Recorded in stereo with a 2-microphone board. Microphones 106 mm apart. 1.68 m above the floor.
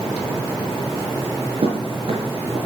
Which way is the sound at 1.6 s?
65° right (ahead or behind).